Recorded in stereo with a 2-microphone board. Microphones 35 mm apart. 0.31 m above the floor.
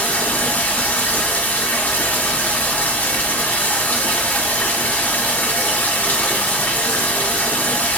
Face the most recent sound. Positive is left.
turn(degrees=50)  # may be behind; listen again after turning